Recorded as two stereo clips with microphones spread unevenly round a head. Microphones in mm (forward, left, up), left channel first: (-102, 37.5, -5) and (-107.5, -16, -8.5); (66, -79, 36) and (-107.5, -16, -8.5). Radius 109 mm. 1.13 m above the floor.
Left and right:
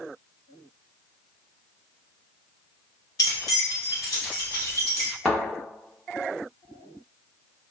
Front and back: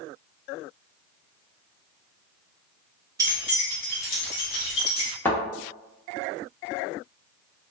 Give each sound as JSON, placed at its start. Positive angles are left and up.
{"t": 3.2, "sound": "keys jangling", "azimuth_deg": 80, "distance_m": 0.6}
{"t": 5.2, "sound": "a thud", "azimuth_deg": 25, "distance_m": 0.7}